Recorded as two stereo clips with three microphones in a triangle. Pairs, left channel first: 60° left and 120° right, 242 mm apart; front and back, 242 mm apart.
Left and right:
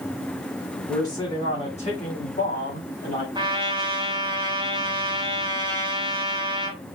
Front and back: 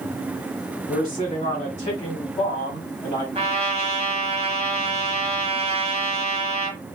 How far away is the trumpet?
About 1.2 m.